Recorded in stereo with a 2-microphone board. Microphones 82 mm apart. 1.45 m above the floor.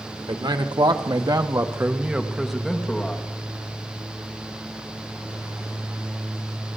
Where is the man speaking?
90° right, 1.9 m; by 3.2 s 15° left (ahead or behind), 2.5 m.